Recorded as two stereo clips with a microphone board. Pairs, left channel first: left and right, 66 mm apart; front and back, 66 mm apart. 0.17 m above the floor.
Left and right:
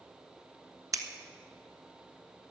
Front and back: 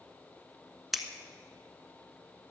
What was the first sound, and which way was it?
Scissors, 95° right.